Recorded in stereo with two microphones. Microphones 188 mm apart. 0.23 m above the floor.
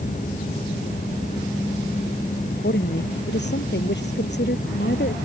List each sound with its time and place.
2.5 s a woman speaking: 60° left (ahead or behind)